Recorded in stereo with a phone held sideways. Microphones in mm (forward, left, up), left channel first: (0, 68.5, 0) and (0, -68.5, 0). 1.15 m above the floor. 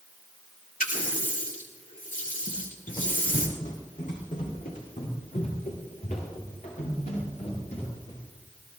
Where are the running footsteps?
50° left (ahead or behind), 1.9 m; by 8.2 s 65° left (ahead or behind), 7 m.